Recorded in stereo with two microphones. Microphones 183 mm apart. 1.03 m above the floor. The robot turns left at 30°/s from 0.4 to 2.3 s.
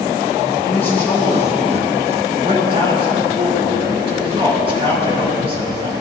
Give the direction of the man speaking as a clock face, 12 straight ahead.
11 o'clock.